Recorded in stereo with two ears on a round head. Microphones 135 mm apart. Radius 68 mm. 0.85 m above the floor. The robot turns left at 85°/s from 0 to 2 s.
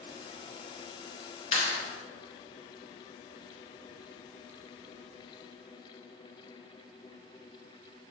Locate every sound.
1.5 s a clap: 40° left (ahead or behind), 2.5 m; by 1.8 s 20° left (ahead or behind), 2.5 m